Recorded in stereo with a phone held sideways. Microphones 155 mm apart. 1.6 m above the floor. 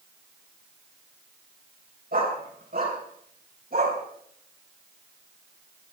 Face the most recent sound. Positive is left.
turn(degrees=-80)